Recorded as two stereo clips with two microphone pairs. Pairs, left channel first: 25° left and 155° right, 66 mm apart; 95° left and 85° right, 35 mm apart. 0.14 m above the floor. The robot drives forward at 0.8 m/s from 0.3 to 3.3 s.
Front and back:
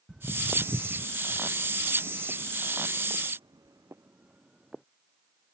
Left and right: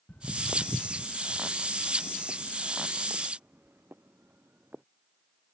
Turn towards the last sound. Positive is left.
turn(degrees=-65)